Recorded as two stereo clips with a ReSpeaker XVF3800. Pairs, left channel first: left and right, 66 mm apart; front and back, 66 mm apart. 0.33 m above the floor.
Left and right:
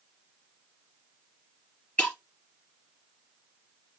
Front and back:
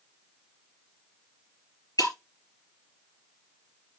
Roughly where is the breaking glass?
Ahead.